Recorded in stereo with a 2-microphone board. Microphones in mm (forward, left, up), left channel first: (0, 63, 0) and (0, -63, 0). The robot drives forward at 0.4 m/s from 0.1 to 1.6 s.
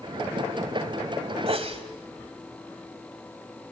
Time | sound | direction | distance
1.5 | a sneeze | 50° right (ahead or behind) | 1.7 m